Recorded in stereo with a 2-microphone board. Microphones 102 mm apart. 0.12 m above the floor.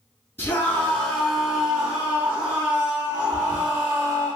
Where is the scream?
20° left (ahead or behind), 1.8 m; by 4.3 s 40° right (ahead or behind), 3 m.